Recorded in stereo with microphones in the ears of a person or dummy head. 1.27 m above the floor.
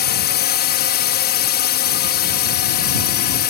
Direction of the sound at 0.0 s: 50° left (ahead or behind).